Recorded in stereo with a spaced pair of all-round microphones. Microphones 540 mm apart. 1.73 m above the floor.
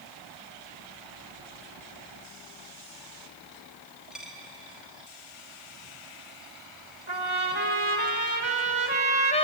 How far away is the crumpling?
I don't hear crumpling.